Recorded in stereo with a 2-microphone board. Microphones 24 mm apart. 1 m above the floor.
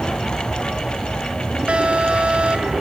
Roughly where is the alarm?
Right.